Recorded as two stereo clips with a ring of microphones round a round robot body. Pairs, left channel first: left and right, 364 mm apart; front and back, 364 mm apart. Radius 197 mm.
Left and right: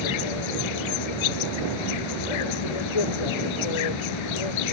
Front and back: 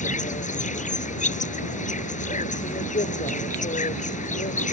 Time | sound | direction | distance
0.0 | an insect | 70° left | ?